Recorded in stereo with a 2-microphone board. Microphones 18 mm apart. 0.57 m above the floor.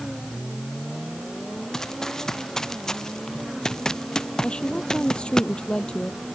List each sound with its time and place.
1.7 s running footsteps: 25° left (ahead or behind); by 5.4 s 40° left (ahead or behind)
4.4 s a woman speaking: 60° left (ahead or behind)